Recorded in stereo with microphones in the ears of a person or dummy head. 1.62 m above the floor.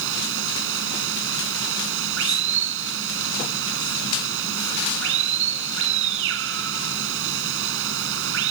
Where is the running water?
75° right (ahead or behind).